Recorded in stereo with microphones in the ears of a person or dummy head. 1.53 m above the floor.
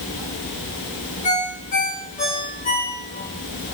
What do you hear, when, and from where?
1.2 s a ringtone: 40° left (ahead or behind), 2 m